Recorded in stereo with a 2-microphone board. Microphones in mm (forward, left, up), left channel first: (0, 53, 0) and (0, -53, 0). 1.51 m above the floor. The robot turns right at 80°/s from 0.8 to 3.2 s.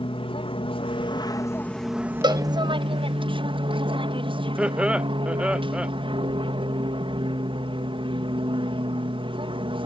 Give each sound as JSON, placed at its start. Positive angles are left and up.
{"t": 0.0, "sound": "an aircraft", "azimuth_deg": 95}
{"t": 2.2, "sound": "a cowbell", "side_deg": -45}
{"t": 4.6, "sound": "laughter", "side_deg": -10}